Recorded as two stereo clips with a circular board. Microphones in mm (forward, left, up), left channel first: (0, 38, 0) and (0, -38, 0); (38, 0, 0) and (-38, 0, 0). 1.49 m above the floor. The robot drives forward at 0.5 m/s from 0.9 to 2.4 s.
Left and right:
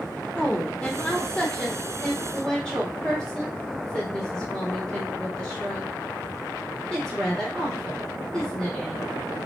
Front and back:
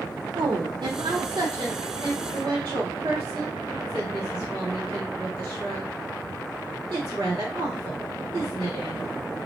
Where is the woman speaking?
175° left, 0.6 m; by 9.1 s straight behind, 1.4 m.